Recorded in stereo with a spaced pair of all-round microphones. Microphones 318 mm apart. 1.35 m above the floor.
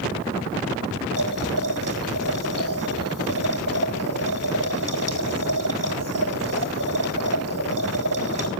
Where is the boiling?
80° right, 4 m.